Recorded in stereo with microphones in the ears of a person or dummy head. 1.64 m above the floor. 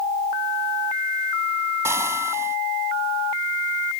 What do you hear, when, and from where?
1.9 s frying: 15° right (ahead or behind)